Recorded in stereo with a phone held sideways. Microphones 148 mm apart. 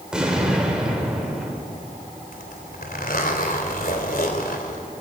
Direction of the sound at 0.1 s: 5° right (ahead or behind).